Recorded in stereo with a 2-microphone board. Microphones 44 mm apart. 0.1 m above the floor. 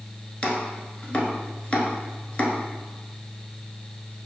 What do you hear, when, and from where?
0.4 s chopping: 25° left (ahead or behind), 0.9 m